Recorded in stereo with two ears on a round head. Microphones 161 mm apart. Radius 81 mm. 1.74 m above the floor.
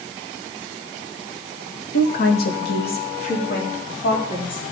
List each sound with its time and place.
1.9 s a woman speaking: 60° left (ahead or behind), 1.8 m; by 4.6 s 55° left (ahead or behind), 5 m